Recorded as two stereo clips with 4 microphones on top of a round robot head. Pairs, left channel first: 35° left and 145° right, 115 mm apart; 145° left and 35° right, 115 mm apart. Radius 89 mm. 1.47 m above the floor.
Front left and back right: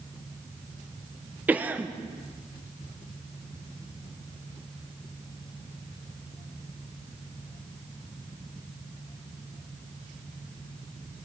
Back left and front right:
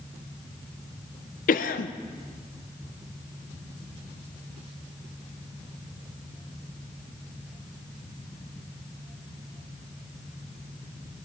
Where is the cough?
140° left, 0.7 m.